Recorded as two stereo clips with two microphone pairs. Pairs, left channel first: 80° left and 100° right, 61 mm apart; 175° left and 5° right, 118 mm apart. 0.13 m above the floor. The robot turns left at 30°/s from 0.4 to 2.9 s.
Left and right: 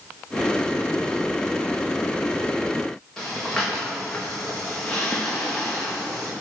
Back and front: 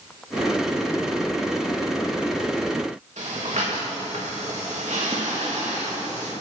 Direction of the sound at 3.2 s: Straight ahead.